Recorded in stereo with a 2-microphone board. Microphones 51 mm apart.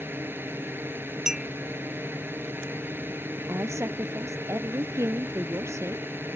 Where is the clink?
10° right (ahead or behind).